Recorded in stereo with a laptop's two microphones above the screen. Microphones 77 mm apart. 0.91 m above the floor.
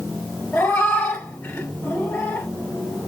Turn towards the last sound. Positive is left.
turn(degrees=30)  # may be behind; listen again after turning